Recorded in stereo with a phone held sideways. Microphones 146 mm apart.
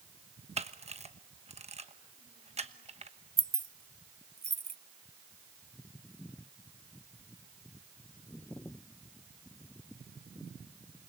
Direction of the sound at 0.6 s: 45° right (ahead or behind).